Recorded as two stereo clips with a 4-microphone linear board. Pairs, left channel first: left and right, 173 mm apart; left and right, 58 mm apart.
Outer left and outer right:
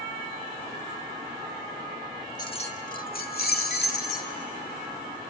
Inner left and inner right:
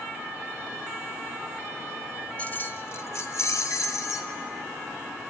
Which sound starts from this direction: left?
Keys jangling, at 2.4 s.